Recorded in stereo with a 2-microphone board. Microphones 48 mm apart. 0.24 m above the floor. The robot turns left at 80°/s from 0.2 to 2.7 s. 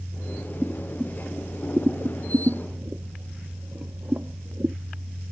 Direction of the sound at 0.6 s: 25° left (ahead or behind).